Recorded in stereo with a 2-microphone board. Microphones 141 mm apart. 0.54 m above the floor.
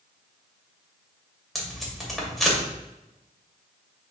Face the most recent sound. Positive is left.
turn(degrees=0)  # may be behind; listen again after turning